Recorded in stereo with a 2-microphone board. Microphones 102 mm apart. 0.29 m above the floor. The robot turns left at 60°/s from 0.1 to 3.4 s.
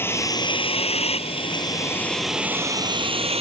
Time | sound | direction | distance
0.0 | a vehicle | 20° left (ahead or behind) | ?